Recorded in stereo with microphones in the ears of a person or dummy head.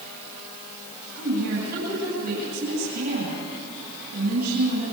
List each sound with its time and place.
1.1 s a woman speaking: 60° right (ahead or behind), 8.5 m